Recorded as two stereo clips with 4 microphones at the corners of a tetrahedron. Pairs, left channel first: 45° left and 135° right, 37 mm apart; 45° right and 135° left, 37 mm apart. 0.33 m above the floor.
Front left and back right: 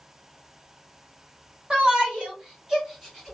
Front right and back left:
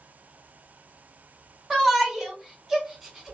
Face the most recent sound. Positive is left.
turn(degrees=145)